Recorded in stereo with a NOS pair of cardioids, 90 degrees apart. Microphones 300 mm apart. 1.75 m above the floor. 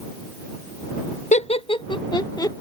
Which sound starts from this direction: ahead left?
Laughter, at 1.3 s.